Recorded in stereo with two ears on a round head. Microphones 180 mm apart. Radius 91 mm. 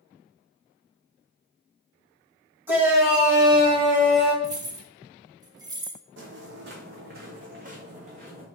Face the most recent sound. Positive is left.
turn(degrees=-35)  # may be behind; listen again after turning